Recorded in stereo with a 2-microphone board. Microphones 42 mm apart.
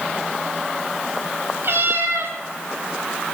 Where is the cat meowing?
60° right (ahead or behind), 7 m.